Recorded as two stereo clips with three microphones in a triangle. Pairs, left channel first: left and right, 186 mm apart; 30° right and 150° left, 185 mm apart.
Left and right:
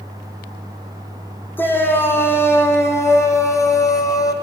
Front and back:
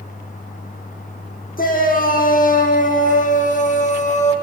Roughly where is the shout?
Ahead.